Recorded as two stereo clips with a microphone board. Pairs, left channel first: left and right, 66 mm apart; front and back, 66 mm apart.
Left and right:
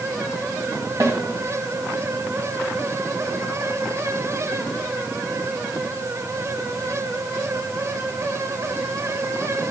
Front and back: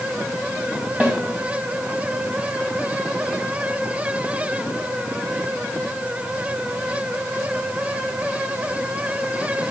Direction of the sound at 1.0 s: 115° right.